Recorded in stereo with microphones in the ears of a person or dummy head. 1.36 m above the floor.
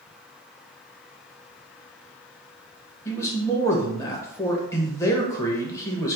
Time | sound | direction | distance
3.0 | a man speaking | 15° left (ahead or behind) | 1.2 m